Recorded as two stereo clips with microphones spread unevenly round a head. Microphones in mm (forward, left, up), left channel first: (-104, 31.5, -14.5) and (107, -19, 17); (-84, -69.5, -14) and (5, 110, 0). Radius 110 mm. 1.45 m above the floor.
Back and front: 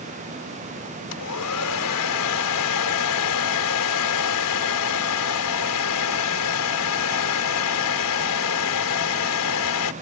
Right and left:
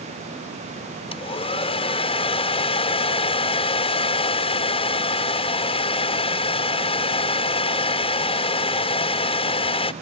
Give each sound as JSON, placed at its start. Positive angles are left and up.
{"t": 1.1, "sound": "a hair dryer", "azimuth_deg": 180}